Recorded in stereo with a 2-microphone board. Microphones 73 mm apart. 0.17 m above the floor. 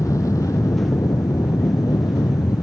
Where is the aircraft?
50° left (ahead or behind); by 2.6 s 60° left (ahead or behind).